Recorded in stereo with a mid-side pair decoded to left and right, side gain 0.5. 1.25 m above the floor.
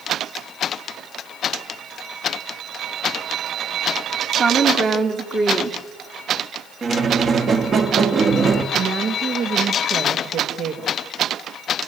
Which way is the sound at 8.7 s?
65° right.